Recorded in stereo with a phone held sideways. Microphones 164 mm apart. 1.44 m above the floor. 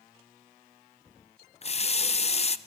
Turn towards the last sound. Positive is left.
turn(degrees=40)  # may be behind; listen again after turning